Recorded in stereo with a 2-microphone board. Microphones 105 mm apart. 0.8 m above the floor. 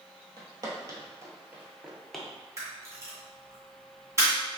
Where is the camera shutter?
30° right (ahead or behind), 1.9 m.